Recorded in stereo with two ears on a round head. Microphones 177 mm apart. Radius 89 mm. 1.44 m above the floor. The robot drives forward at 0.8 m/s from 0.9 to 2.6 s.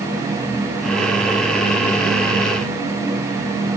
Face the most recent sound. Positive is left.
No sound to turn to.